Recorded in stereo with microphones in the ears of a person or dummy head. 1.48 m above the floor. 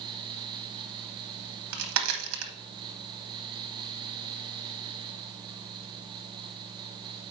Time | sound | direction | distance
1.4 | a crack | 65° right (ahead or behind) | 1.1 m